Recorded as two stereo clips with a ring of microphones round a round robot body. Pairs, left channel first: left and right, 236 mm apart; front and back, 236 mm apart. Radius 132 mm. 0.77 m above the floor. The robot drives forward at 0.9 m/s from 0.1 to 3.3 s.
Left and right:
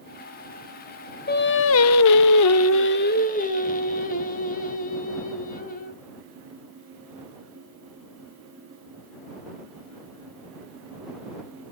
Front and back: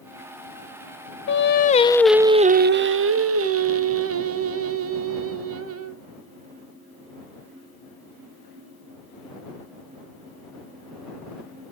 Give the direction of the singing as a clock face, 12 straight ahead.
11 o'clock.